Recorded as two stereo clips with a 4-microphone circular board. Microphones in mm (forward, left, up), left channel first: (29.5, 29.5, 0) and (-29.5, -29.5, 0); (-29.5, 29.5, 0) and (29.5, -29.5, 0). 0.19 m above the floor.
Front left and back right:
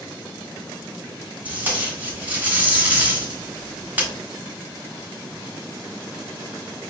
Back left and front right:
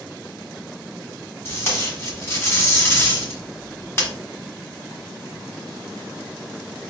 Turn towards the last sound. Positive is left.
turn(degrees=170)